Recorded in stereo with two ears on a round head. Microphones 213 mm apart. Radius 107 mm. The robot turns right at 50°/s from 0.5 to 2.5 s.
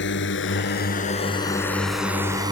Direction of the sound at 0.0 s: 50° left (ahead or behind).